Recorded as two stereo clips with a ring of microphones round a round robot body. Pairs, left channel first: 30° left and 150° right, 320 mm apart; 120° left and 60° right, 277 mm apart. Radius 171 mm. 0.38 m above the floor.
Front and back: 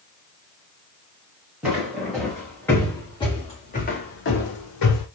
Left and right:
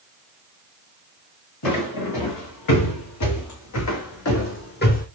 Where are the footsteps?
125° left, 2.5 m; by 5.1 s 55° left, 1.0 m.